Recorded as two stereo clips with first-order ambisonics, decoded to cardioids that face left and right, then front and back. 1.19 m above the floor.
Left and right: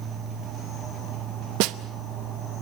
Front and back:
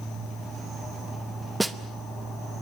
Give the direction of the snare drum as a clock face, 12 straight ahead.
3 o'clock.